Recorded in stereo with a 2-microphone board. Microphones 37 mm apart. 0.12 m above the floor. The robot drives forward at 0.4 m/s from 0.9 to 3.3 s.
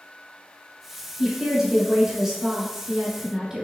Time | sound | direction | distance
1.2 | a woman speaking | 15° right (ahead or behind) | 1.5 m